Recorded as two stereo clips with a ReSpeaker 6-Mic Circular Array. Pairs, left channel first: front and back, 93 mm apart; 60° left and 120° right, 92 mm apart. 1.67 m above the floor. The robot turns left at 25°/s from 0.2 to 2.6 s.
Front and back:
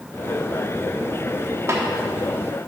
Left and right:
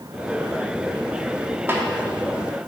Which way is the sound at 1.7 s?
160° right.